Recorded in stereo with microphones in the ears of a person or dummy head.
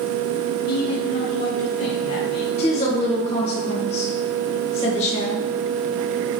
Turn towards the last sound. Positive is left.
turn(degrees=30)  # may be behind; listen again after turning